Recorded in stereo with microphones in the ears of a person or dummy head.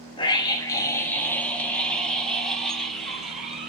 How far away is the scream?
About 1.5 m.